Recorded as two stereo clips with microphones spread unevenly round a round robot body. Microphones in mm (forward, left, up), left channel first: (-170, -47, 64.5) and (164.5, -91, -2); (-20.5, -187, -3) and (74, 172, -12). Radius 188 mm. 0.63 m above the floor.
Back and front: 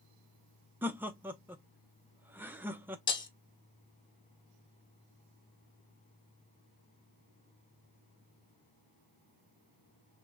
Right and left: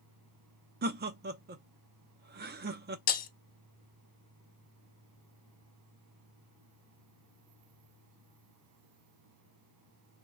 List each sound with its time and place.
0.8 s laughter: 50° left, 0.6 m
3.1 s breaking glass: 145° right, 0.7 m